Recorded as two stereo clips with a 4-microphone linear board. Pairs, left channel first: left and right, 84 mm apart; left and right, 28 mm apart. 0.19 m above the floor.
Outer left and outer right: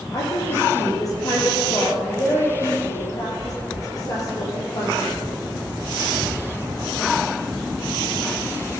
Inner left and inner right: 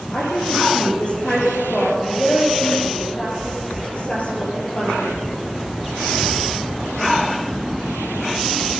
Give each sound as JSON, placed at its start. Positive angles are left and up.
{"t": 0.1, "sound": "a woman speaking", "side_deg": 45, "distance_m": 6.0}